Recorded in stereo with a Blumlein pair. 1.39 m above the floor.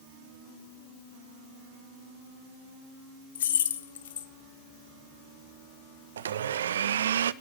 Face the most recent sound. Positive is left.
turn(degrees=-65)